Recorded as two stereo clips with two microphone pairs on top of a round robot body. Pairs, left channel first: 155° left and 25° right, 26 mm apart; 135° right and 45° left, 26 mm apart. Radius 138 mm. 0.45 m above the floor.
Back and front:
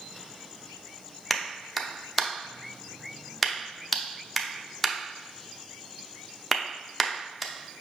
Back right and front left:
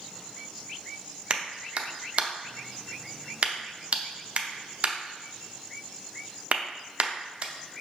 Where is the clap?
65° left, 0.7 m.